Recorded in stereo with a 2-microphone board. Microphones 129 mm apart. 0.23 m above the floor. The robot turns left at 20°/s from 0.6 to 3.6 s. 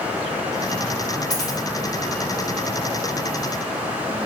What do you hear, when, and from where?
1.3 s a dropped coin: 75° left (ahead or behind), 2 m